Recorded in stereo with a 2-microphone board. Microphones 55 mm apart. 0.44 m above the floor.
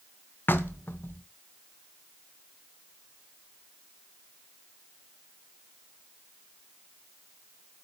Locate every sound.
0.5 s knocking: 45° left (ahead or behind), 0.6 m